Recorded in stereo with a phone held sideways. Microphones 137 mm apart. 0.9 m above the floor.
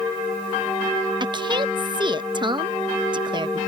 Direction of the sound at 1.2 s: 35° right (ahead or behind).